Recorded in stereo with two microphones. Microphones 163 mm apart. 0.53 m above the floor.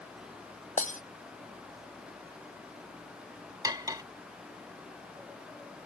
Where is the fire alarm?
I don't hear a fire alarm.